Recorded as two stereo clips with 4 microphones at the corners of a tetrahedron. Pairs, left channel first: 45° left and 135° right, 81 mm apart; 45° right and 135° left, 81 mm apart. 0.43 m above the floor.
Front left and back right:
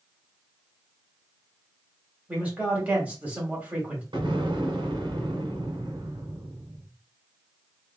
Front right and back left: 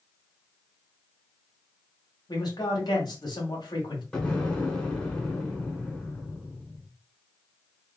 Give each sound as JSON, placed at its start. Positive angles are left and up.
{"t": 2.3, "sound": "a man speaking", "azimuth_deg": -65, "distance_m": 2.0}
{"t": 4.1, "sound": "an explosion", "azimuth_deg": -125, "distance_m": 1.5}